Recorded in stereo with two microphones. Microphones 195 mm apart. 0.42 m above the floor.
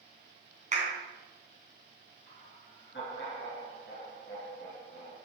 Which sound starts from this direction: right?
A clap, at 0.7 s.